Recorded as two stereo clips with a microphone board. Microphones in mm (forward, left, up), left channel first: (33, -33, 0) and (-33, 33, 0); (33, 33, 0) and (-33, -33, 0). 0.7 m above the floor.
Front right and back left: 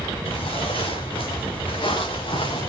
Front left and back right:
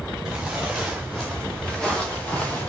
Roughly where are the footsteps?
Ahead right.